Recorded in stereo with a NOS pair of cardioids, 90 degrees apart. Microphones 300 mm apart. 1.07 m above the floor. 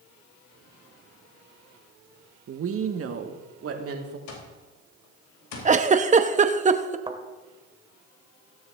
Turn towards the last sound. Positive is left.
turn(degrees=-20)